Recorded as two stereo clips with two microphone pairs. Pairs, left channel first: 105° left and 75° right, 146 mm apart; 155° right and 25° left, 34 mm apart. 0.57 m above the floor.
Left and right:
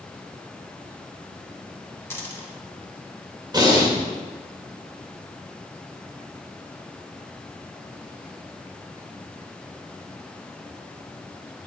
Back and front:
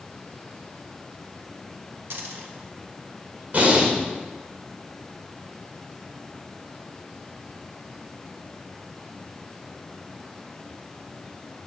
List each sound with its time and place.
2.1 s a dropped coin: 30° left, 2 m
3.5 s breathing: 15° right, 2 m